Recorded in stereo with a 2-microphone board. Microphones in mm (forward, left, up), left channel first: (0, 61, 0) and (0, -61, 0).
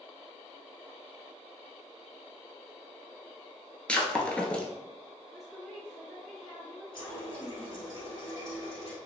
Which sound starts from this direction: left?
A running tap, at 6.9 s.